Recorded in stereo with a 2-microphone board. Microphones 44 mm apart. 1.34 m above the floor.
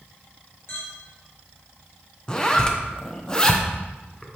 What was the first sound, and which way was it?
A clink, 75° left (ahead or behind).